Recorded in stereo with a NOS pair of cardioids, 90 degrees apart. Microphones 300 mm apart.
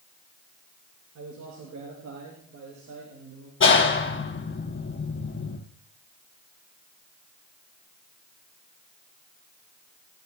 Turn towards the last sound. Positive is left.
turn(degrees=40)